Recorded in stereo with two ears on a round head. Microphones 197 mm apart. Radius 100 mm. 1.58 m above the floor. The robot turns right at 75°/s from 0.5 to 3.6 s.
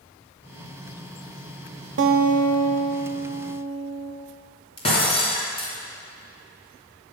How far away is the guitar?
About 0.8 m.